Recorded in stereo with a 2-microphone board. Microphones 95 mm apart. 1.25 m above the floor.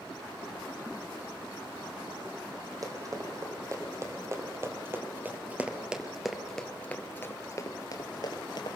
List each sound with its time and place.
2.8 s running footsteps: 40° right (ahead or behind), 3.5 m; by 8.8 s 55° left (ahead or behind), 2 m